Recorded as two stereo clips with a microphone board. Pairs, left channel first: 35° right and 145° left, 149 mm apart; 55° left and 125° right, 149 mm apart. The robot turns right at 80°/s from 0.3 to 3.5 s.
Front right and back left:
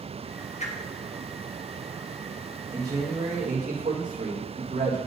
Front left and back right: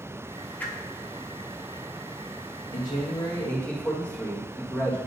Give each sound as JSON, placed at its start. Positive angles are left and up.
{"t": 0.6, "sound": "a whoosh", "azimuth_deg": -20, "distance_m": 0.8}
{"t": 2.7, "sound": "a man speaking", "azimuth_deg": 70, "distance_m": 1.7}